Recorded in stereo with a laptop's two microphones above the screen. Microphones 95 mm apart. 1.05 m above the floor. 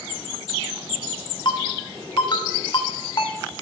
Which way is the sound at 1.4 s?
50° left (ahead or behind).